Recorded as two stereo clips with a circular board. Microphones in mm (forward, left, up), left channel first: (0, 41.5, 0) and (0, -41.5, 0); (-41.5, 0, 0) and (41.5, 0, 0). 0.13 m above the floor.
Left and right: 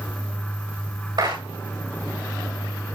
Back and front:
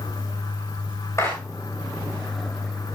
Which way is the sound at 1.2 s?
120° right.